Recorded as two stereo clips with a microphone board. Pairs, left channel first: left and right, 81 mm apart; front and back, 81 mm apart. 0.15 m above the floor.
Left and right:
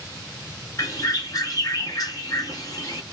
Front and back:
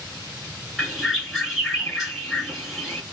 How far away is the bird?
About 2.0 m.